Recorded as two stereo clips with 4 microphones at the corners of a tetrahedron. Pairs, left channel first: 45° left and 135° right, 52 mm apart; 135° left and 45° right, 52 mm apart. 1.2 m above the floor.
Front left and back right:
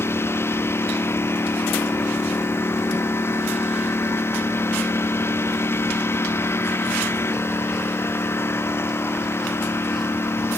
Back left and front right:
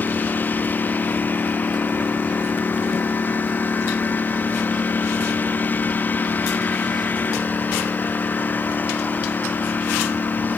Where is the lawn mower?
80° left.